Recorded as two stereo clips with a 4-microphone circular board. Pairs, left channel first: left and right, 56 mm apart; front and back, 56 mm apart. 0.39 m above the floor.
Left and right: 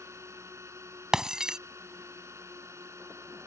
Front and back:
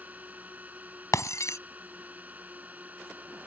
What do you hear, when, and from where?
0.0 s a drone: 120° right
1.1 s breaking glass: 10° right